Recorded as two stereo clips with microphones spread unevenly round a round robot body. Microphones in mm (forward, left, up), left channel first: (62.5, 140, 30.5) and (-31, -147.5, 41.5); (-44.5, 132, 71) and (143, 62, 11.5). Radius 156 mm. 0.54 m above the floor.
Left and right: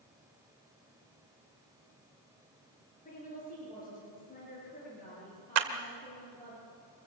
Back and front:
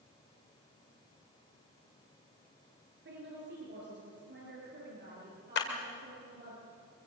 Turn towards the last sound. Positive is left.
turn(degrees=-145)